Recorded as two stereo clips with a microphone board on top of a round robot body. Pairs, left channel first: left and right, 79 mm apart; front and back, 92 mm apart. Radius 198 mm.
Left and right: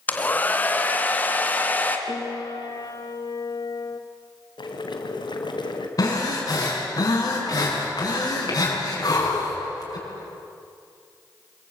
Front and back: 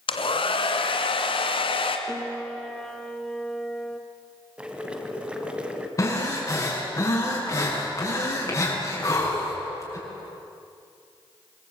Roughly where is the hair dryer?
Ahead.